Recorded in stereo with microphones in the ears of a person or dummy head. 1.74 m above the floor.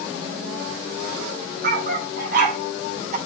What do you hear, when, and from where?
1.6 s a dog barking: 60° right (ahead or behind), 3.5 m; by 3.2 s 50° right (ahead or behind), 2.5 m